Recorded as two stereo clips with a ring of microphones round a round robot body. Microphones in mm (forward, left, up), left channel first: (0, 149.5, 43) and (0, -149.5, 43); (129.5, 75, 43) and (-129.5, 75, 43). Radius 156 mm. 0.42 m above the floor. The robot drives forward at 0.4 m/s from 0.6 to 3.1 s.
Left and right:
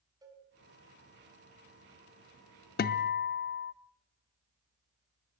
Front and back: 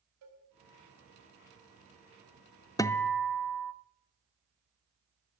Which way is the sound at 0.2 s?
165° right.